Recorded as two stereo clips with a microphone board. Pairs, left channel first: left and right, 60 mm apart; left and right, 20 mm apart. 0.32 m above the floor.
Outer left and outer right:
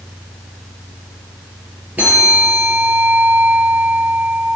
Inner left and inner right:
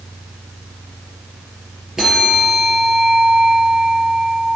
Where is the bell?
30° right (ahead or behind), 5 m.